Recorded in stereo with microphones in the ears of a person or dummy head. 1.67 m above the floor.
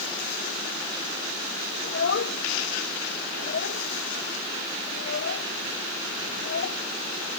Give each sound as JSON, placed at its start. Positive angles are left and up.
{"t": 1.8, "sound": "a child speaking", "side_deg": 65}